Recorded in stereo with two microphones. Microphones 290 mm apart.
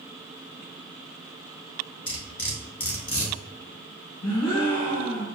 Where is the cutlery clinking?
55° left (ahead or behind), 1.4 m.